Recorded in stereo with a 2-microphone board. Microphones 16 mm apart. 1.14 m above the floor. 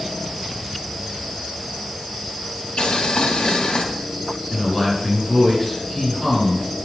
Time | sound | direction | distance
2.8 | boiling | 70° left (ahead or behind) | 2.5 m
4.5 | a man speaking | 5° right (ahead or behind) | 7.5 m